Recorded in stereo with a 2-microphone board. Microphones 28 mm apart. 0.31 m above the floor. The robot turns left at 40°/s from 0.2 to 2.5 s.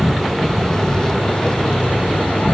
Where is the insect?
175° left, 0.9 m; by 2.6 s 85° left, 0.9 m.